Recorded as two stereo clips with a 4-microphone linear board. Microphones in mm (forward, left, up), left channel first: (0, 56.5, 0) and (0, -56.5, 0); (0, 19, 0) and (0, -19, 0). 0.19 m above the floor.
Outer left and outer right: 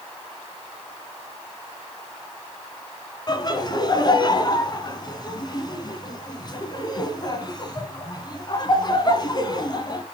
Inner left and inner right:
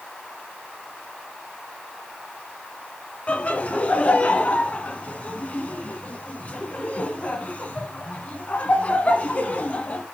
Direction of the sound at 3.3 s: 35° left (ahead or behind).